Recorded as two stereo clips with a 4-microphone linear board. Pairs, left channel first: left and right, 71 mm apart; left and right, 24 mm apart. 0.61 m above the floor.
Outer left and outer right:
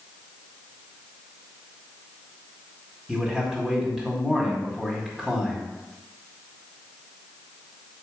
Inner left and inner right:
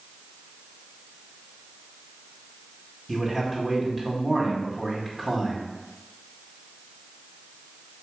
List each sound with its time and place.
3.1 s a man speaking: 10° right (ahead or behind), 2.0 m